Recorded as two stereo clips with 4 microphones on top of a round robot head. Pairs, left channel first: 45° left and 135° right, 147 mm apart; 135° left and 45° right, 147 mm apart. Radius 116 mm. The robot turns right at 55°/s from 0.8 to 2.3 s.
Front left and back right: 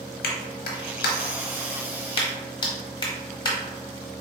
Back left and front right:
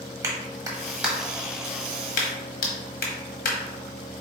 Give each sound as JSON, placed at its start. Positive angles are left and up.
{"t": 0.2, "sound": "a clap", "azimuth_deg": 25, "distance_m": 1.1}